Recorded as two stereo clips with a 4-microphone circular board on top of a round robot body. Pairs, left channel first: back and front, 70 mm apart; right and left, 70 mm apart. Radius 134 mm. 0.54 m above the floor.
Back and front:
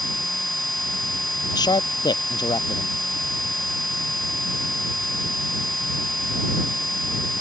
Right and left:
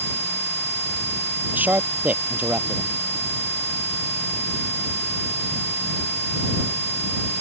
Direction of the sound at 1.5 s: 160° left.